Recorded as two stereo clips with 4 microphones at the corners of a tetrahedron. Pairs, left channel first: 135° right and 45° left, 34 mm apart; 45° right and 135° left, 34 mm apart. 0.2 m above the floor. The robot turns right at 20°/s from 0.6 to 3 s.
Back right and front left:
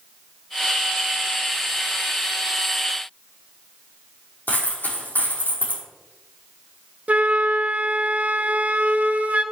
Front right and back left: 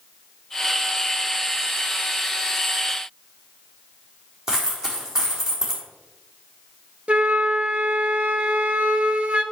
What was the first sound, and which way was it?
A dropped coin, 150° right.